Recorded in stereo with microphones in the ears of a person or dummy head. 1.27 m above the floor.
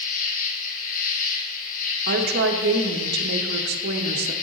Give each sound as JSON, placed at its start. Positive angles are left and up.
{"t": 0.0, "sound": "an insect", "side_deg": 50, "distance_m": 1.5}
{"t": 2.1, "sound": "a woman speaking", "side_deg": -55, "distance_m": 0.8}